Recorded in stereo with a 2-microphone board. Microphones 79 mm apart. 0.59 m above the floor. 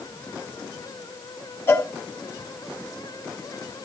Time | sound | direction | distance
1.7 | a cowbell | 35° left (ahead or behind) | 1.9 m